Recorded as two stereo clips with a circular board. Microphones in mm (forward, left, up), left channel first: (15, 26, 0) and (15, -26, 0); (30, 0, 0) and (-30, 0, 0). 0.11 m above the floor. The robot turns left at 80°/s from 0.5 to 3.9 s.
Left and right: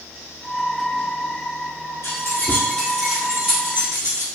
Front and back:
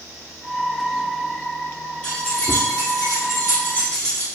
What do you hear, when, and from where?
2.0 s keys jangling: 75° left, 1.8 m; by 4.3 s 75° right, 1.8 m